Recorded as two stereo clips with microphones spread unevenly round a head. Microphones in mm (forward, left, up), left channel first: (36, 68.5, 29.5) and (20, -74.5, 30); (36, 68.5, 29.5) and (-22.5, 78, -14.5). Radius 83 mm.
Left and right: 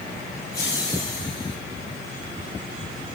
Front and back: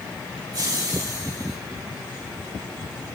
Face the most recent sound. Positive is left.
turn(degrees=150)